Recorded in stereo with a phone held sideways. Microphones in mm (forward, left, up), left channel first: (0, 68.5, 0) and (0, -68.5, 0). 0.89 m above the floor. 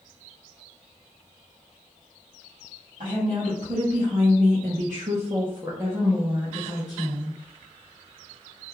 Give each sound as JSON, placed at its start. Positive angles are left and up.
{"t": 3.0, "sound": "a woman speaking", "side_deg": -60, "distance_m": 1.6}